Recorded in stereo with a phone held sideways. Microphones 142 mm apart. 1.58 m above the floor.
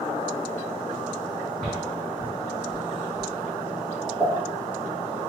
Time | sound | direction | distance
1.6 | footsteps | 5° left (ahead or behind) | 1.6 m
4.2 | a pop | 25° right (ahead or behind) | 0.9 m